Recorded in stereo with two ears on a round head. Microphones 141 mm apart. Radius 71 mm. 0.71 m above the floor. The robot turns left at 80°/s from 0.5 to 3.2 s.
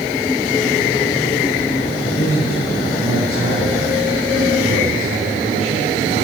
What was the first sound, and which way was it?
A man speaking, 50° left.